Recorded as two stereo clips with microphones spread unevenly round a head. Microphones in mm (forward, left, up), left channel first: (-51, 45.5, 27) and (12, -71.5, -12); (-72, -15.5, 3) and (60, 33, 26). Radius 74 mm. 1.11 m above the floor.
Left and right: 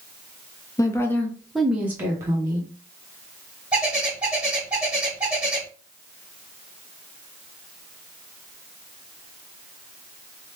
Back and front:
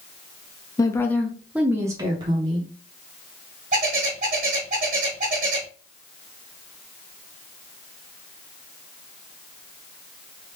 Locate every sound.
0.8 s a woman speaking: 170° right, 0.6 m; by 2.7 s 25° right, 0.9 m
3.7 s a bird: 30° left, 1.4 m